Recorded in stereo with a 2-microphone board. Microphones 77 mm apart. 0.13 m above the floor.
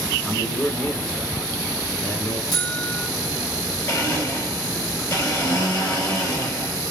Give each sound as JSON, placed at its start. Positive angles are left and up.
{"t": 0.2, "sound": "a man speaking", "side_deg": 20, "distance_m": 1.3}
{"t": 2.5, "sound": "a buzzer", "side_deg": 60, "distance_m": 1.0}
{"t": 3.9, "sound": "a blender", "side_deg": 40, "distance_m": 1.9}